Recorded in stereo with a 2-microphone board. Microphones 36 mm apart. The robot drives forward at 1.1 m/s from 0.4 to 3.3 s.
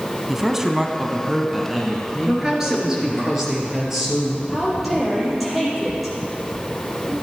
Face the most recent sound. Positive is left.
turn(degrees=0)  # may be behind; listen again after turning